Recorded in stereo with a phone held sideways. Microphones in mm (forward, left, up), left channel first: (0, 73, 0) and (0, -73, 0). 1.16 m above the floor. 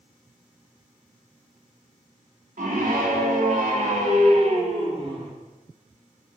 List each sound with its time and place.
2.6 s a scream: 80° right, 3 m; by 5.3 s 40° right (ahead or behind), 3 m